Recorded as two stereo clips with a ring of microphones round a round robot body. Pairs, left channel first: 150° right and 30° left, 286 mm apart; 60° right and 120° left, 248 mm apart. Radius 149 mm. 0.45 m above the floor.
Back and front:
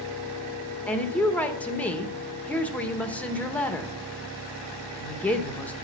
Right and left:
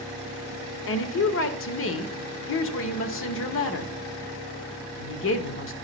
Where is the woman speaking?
65° right, 1.1 m.